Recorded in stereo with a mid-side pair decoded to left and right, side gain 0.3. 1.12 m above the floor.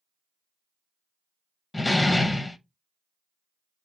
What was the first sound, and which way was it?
A door slam, 30° left.